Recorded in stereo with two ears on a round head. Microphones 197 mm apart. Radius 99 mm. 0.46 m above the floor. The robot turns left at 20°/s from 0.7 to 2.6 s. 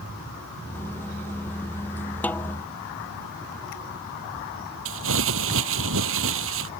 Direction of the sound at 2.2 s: 5° left (ahead or behind).